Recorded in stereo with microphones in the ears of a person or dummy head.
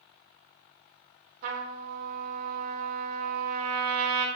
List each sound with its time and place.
1.4 s a trumpet: 45° right (ahead or behind), 0.6 m